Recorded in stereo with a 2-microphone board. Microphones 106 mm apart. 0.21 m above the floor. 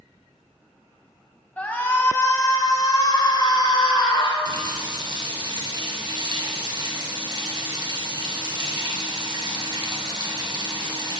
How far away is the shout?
About 1.0 m.